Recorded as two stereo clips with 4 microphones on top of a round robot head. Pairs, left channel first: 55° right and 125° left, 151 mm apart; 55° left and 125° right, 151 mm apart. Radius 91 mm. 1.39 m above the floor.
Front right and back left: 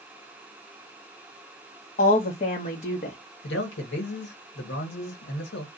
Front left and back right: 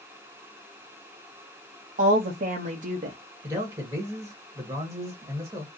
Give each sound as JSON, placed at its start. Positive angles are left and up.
{"t": 2.0, "sound": "a woman speaking", "azimuth_deg": -95, "distance_m": 0.8}
{"t": 3.4, "sound": "a man speaking", "azimuth_deg": -55, "distance_m": 1.2}